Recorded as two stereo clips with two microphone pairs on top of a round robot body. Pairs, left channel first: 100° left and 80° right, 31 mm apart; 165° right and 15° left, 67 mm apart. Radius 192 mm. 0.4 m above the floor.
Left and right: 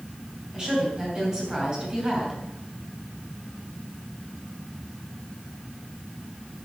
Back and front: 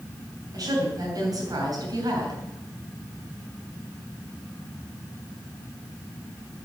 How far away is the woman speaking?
About 6.5 m.